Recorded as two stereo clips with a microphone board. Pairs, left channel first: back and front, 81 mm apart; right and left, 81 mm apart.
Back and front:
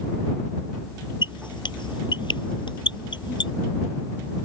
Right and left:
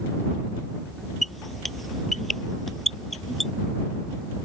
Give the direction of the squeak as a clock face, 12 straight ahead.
6 o'clock.